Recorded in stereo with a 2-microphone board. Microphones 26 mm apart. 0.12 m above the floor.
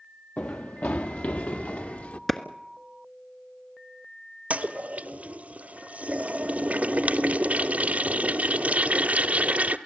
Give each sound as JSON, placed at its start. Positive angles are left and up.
{"t": 0.4, "sound": "running footsteps", "side_deg": 80, "distance_m": 0.7}
{"t": 2.3, "sound": "a clap", "side_deg": 15, "distance_m": 1.3}
{"t": 4.5, "sound": "a toilet flushing", "side_deg": -70, "distance_m": 0.9}